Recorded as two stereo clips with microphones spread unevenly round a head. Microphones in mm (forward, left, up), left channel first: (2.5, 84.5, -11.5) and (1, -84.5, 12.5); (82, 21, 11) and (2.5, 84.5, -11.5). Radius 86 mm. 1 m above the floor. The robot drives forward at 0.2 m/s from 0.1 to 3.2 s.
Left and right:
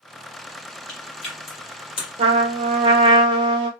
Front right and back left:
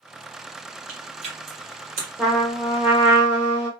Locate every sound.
0.9 s chewing: 150° left, 1.4 m
2.2 s a trumpet: 145° right, 0.6 m; by 3.7 s 155° right, 0.8 m